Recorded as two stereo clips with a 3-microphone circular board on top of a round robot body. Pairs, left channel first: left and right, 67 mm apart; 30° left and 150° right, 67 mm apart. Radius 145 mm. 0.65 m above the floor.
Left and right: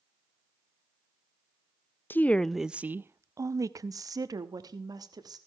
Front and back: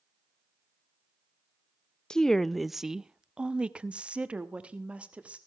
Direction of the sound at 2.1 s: 100° left.